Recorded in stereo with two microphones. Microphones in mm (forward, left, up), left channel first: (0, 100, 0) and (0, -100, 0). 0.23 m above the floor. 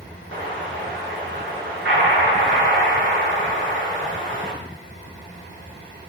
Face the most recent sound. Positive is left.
turn(degrees=-70)  # may be behind; listen again after turning